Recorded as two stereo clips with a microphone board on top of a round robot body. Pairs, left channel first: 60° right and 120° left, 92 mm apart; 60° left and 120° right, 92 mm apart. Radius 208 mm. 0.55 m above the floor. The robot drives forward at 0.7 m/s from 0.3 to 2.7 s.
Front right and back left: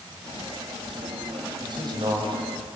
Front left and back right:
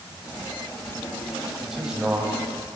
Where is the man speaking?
155° left, 4.5 m; by 2.8 s 160° left, 5 m.